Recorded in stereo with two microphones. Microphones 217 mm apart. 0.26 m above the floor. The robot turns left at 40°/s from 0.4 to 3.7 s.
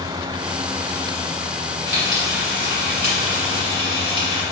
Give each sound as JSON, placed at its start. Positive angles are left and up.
{"t": 1.9, "sound": "frying", "azimuth_deg": -80, "distance_m": 1.5}